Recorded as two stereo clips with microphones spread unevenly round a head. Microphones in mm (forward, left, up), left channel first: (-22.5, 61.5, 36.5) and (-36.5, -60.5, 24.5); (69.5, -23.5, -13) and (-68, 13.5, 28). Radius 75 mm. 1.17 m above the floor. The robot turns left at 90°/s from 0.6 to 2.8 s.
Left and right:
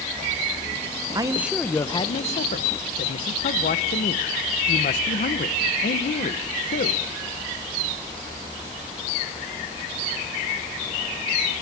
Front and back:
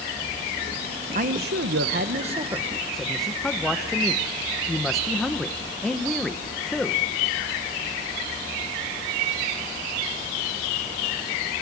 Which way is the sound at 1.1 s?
145° right.